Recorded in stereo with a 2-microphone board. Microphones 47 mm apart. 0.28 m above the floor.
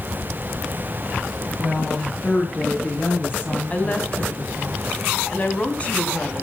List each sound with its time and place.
1.6 s a woman speaking: 20° left (ahead or behind), 5 m; by 4.7 s 50° left (ahead or behind), 7.5 m
3.7 s a woman speaking: 30° left (ahead or behind), 2 m